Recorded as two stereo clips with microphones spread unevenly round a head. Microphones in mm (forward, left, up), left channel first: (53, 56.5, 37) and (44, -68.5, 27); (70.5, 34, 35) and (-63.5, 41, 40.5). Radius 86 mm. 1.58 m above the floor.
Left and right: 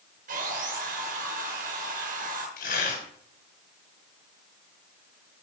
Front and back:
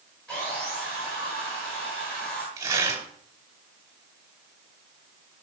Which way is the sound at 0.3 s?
90° right.